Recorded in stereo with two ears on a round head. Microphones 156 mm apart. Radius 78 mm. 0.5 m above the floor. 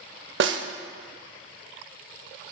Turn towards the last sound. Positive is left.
turn(degrees=-70)  # may be behind; listen again after turning